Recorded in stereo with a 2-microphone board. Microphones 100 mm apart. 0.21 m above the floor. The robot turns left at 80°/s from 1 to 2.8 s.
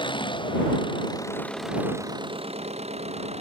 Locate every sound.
0.0 s an engine running: 50° left; by 3.4 s 95° right